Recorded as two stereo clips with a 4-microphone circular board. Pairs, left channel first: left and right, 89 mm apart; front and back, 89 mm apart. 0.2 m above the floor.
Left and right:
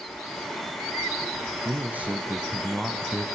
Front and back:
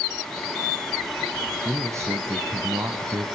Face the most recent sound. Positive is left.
turn(degrees=165)